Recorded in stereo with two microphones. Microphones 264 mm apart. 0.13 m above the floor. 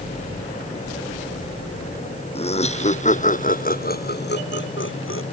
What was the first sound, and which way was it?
Laughter, 25° left (ahead or behind).